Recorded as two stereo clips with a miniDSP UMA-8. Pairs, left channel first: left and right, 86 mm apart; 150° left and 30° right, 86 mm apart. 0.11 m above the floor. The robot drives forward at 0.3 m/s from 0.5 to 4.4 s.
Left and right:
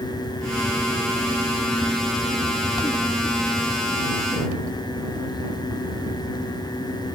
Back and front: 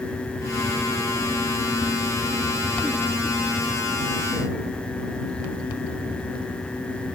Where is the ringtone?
I don't hear a ringtone.